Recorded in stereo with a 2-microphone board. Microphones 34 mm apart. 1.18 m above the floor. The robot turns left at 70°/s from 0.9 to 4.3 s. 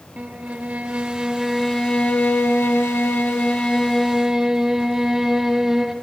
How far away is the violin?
About 1.3 m.